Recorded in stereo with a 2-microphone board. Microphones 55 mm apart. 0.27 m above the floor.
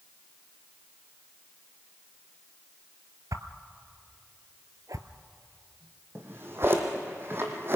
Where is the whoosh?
85° right, 1.0 m.